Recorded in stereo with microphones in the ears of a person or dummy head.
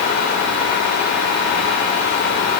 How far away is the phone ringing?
I don't hear a phone ringing.